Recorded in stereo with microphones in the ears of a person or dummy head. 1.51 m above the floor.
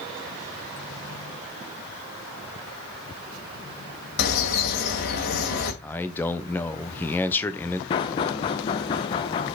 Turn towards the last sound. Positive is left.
turn(degrees=25)  # may be behind; listen again after turning